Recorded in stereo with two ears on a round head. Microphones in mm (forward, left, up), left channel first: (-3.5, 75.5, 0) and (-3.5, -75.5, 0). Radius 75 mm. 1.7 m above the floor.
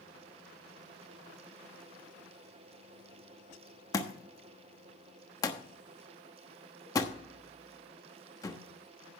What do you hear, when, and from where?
3.9 s a thud: 20° left (ahead or behind), 1.1 m